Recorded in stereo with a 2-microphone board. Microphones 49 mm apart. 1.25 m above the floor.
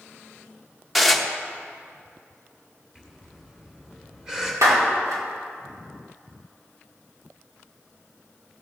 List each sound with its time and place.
0.9 s dishes clattering: centre (ahead or behind), 0.8 m
3.0 s breathing: 10° right (ahead or behind), 2 m
4.6 s a clap: 80° right, 2 m